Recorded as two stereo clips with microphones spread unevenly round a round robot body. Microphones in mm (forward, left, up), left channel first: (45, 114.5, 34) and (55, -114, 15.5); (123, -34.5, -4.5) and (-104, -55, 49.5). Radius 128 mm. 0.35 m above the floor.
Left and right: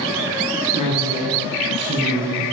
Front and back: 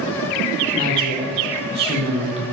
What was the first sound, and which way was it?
A woman speaking, 115° right.